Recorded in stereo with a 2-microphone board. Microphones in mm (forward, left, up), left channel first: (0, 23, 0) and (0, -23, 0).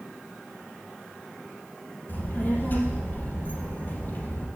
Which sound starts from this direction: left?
A child speaking, at 2.1 s.